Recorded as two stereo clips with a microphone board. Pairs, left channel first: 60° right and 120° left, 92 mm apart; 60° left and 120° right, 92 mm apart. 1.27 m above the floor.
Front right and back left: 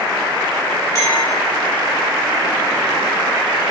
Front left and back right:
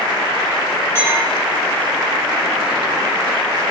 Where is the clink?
5° right, 2 m.